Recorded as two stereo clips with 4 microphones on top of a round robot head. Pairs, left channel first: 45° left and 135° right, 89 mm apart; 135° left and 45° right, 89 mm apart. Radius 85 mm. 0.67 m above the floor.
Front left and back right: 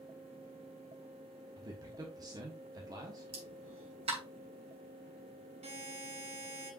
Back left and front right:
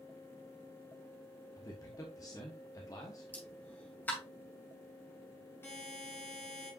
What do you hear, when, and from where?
1.6 s a man speaking: 175° right, 1.2 m
3.3 s a pop: 150° right, 2.5 m
5.6 s a buzzer: 155° right, 2.5 m